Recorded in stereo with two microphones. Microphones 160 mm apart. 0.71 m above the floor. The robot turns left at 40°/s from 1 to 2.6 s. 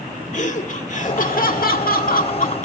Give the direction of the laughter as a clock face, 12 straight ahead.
8 o'clock.